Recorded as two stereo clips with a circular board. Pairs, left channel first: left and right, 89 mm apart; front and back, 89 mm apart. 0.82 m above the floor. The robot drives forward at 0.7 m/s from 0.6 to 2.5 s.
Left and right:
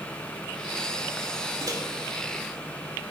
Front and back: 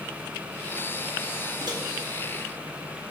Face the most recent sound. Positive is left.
turn(degrees=-150)